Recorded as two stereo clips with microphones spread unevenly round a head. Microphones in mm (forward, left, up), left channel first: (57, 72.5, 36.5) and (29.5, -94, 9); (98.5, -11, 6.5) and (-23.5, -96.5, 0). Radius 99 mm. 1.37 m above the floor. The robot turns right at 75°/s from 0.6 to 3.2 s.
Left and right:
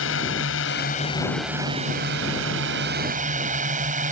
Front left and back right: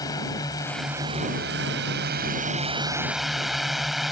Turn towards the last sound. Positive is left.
turn(degrees=-55)